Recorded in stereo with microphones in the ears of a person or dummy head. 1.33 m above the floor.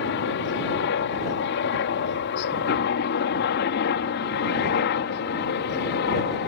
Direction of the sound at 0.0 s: 60° left (ahead or behind).